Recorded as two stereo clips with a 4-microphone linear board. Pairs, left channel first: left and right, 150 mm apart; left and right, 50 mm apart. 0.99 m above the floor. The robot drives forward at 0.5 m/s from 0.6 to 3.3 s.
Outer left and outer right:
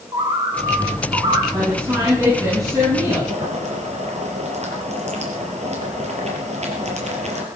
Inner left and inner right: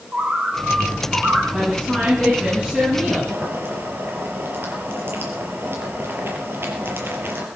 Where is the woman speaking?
25° right (ahead or behind), 10 m; by 3.2 s 20° right (ahead or behind), 10.5 m.